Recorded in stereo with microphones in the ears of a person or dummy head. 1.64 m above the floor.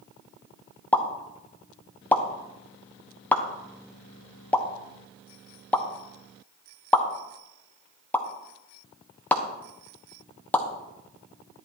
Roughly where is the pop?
Centre.